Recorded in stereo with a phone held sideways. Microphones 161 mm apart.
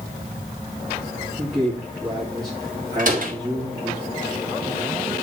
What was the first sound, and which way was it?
A man speaking, 25° right (ahead or behind).